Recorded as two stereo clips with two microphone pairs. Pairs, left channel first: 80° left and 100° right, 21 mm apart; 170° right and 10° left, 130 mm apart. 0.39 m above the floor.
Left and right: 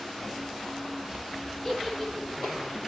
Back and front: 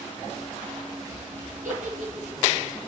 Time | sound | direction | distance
1.6 | a giggle | 5° right | 6.5 m